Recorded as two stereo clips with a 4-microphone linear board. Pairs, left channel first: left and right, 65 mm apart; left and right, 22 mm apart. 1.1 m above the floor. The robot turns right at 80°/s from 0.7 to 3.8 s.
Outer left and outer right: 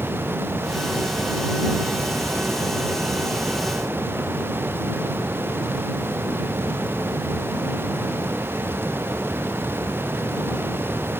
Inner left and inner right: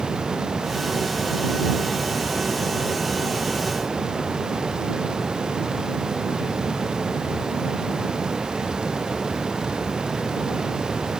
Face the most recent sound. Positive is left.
No sound to turn to.